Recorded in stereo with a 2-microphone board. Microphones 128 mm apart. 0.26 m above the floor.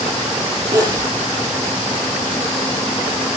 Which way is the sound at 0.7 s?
30° right (ahead or behind).